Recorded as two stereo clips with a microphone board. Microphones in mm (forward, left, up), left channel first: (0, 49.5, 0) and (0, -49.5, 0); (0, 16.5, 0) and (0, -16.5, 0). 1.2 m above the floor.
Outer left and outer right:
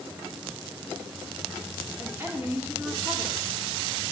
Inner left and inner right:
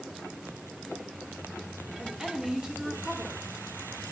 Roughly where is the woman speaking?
Right.